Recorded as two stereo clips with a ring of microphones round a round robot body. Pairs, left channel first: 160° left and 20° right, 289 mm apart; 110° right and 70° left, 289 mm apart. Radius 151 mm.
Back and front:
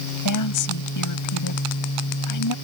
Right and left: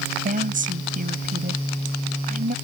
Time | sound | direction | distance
0.2 | a woman speaking | 130° left | ?